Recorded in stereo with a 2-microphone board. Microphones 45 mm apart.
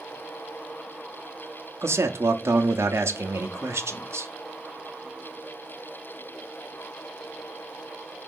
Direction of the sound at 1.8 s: 80° right.